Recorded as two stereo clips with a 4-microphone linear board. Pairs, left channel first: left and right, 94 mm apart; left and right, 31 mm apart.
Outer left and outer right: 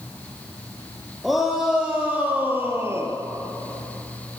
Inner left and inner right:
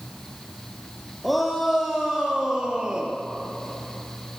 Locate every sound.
1.2 s a shout: centre (ahead or behind), 4 m; by 3.1 s 30° right (ahead or behind), 3.5 m